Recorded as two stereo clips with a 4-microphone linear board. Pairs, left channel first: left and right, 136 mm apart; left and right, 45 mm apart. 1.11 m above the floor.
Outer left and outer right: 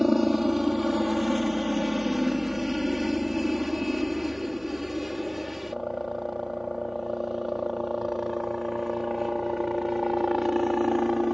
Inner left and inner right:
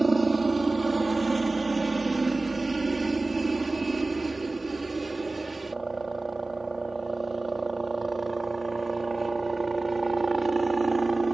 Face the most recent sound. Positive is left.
turn(degrees=0)  # may be behind; listen again after turning